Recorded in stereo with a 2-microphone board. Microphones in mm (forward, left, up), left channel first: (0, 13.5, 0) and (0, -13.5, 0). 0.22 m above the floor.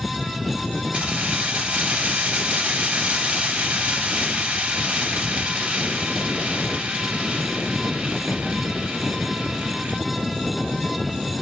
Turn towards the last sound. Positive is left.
turn(degrees=-70)  # may be behind; listen again after turning